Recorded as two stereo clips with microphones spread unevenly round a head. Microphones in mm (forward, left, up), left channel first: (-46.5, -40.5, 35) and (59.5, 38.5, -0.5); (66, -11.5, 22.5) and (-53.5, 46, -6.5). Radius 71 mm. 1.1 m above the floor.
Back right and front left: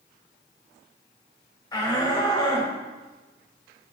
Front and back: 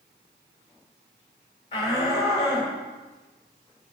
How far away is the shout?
About 3.5 m.